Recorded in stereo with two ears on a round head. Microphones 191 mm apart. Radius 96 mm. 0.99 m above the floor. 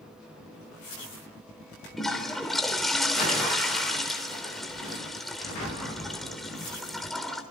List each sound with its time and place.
2.0 s a toilet flushing: centre (ahead or behind), 3.5 m